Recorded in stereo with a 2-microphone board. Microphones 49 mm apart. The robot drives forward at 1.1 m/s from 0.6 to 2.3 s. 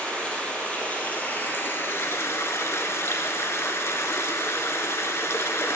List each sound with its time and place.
0.0 s running water: 25° left (ahead or behind), 2.5 m; by 5.8 s 70° left (ahead or behind), 1.2 m